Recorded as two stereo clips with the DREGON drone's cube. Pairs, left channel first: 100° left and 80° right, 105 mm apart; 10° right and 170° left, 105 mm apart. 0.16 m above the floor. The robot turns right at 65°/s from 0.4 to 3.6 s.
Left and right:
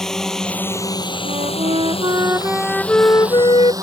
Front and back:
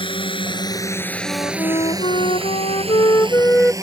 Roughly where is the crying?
No crying in this recording.